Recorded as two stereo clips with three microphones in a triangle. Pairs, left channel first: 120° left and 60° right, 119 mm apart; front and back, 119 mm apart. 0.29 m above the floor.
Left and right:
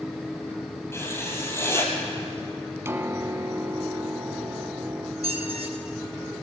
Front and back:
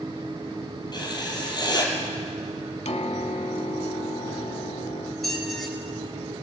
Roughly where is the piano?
Ahead.